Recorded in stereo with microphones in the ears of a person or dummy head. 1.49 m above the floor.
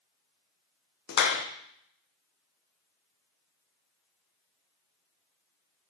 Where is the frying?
No frying in this recording.